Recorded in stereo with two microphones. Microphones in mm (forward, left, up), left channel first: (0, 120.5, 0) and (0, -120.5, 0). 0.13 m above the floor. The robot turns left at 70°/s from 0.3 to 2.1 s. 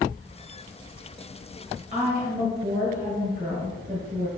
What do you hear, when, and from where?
1.9 s a woman speaking: 30° right (ahead or behind), 2.0 m; by 4.3 s 35° right (ahead or behind), 2.0 m